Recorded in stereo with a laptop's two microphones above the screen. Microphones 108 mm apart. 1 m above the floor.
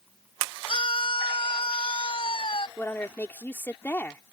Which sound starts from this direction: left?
A scream, at 0.7 s.